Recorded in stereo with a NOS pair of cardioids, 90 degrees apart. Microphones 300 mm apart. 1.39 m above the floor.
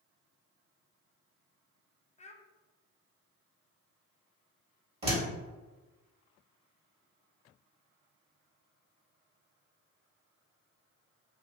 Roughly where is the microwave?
I don't hear a microwave.